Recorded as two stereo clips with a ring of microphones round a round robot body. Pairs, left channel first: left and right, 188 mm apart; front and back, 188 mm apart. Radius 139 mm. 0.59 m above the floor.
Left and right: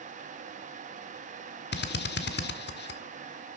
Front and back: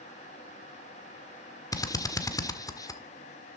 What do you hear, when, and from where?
1.7 s a drill: 70° left, 1.7 m